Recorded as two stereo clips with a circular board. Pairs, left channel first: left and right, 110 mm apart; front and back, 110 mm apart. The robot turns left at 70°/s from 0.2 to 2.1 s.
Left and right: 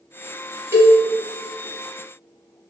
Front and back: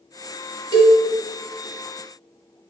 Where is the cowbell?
155° right, 0.7 m; by 1.0 s 170° right, 0.7 m.